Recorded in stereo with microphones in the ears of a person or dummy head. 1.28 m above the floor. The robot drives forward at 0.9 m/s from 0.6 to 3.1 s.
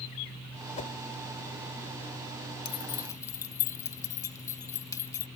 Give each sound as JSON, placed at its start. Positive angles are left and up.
{"t": 0.8, "sound": "a whoosh", "side_deg": 40}
{"t": 2.6, "sound": "keys jangling", "side_deg": 25}